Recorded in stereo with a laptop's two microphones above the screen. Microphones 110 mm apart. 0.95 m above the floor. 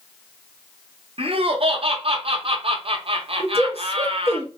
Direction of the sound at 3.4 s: 55° left (ahead or behind).